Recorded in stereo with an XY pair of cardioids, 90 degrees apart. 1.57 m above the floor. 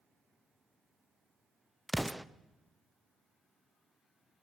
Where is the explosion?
Straight ahead, 0.5 m.